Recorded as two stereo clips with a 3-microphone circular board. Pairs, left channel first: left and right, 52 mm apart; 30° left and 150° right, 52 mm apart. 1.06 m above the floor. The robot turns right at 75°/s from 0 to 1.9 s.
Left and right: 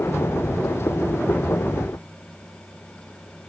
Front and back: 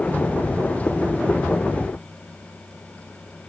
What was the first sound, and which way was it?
Only background noise.